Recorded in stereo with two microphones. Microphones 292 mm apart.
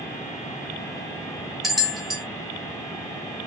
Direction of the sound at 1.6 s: Centre (ahead or behind).